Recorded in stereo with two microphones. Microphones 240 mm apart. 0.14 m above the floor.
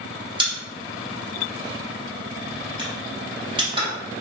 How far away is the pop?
About 1.3 m.